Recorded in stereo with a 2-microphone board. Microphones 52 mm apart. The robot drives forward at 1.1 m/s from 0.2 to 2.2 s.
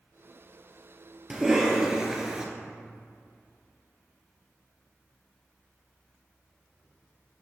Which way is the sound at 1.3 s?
10° right (ahead or behind).